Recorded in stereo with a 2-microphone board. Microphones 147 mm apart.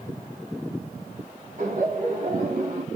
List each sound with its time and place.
1.6 s laughter: 65° right (ahead or behind), 2.5 m; by 2.9 s 55° right (ahead or behind), 1.8 m